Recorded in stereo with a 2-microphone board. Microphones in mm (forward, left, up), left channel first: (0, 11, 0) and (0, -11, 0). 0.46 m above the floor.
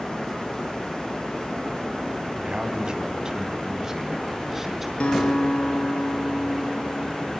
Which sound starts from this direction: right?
A man speaking, at 2.4 s.